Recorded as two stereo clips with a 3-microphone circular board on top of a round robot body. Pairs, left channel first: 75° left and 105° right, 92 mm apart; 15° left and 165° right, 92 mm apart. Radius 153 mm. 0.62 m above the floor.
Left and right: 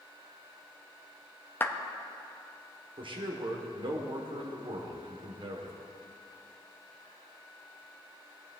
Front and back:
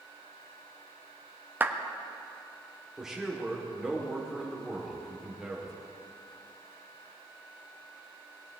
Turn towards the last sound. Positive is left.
turn(degrees=-80)